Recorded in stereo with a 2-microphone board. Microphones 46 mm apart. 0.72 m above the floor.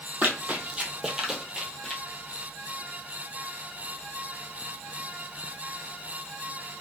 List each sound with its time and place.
0.2 s running footsteps: 40° right (ahead or behind), 0.9 m; by 2.0 s 10° left (ahead or behind), 0.9 m